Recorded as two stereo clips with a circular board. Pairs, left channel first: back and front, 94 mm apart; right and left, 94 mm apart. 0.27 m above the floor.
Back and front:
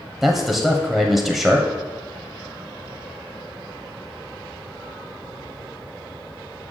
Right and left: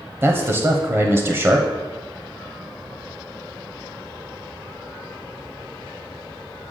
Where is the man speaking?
85° left, 1.1 m.